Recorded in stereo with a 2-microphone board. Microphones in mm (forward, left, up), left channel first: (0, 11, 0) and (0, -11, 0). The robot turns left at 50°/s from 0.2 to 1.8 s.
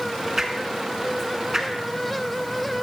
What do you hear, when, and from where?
0.4 s a whoosh: 15° right (ahead or behind), 1.0 m; by 1.7 s 25° right (ahead or behind), 1.0 m